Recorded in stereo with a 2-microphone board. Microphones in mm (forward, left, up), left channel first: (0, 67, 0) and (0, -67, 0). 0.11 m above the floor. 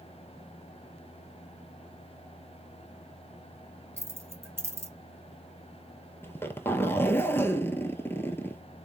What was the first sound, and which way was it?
Keys jangling, 20° right (ahead or behind).